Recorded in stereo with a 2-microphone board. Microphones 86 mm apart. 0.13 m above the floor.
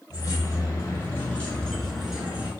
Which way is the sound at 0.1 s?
45° left (ahead or behind).